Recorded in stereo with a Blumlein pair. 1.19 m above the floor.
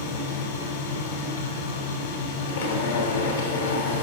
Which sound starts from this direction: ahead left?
A machine running, at 0.0 s.